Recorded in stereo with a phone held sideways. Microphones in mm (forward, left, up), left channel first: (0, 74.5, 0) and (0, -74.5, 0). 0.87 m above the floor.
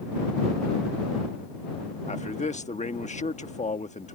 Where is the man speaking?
55° left (ahead or behind).